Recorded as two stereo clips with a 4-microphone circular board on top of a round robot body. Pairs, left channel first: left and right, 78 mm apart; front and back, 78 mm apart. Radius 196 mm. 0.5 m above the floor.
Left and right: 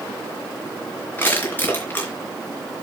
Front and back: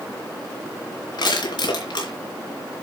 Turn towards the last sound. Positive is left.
turn(degrees=25)